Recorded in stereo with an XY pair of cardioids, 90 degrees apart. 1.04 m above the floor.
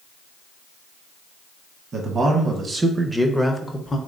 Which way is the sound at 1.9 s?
55° right.